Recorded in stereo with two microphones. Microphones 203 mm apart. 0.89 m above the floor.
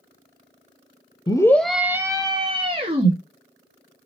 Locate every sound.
1.3 s a scream: 20° left (ahead or behind), 0.5 m; by 3.1 s 30° right (ahead or behind), 1.4 m